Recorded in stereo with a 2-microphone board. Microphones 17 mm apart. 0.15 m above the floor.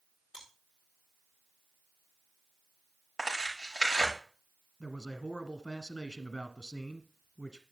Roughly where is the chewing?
Right.